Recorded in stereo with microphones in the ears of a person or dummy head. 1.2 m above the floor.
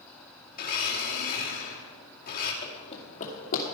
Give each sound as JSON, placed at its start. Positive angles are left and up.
{"t": 0.5, "sound": "a blender", "side_deg": 45, "distance_m": 2.5}
{"t": 2.6, "sound": "running footsteps", "side_deg": 25, "distance_m": 2.0}